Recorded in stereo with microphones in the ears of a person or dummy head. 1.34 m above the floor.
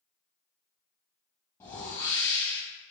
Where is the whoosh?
15° left (ahead or behind), 0.8 m.